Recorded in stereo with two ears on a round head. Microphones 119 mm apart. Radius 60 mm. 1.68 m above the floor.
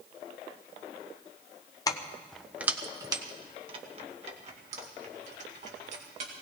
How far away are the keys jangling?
About 0.7 m.